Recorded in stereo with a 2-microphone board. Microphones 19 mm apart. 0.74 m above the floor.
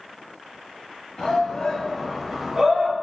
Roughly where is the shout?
Left.